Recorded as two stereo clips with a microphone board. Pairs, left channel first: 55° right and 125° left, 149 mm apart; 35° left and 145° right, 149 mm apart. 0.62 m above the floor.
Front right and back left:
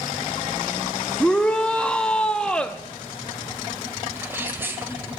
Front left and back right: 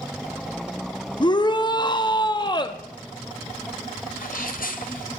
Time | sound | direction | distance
1.2 | a shout | 20° left | 0.7 m
4.2 | a sneeze | 50° left | 3 m